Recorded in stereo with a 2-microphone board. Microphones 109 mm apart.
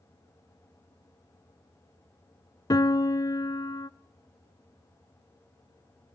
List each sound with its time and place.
2.7 s a piano: 35° left (ahead or behind), 0.7 m